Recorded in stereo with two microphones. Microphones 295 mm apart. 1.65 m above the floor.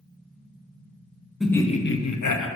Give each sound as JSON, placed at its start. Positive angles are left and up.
{"t": 1.4, "sound": "laughter", "side_deg": 0, "distance_m": 1.0}